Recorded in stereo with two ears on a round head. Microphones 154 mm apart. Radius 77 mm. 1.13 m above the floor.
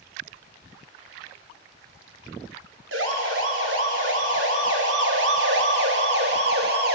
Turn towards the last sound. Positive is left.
turn(degrees=-60)  # may be behind; listen again after turning